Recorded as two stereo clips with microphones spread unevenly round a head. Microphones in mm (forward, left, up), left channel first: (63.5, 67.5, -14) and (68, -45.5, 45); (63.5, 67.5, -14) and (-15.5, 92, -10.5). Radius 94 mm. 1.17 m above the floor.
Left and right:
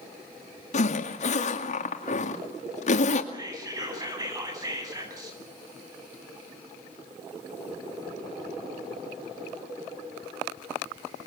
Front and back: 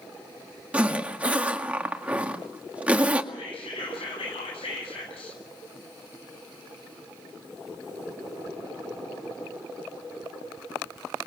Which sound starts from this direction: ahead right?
Whispering, at 3.3 s.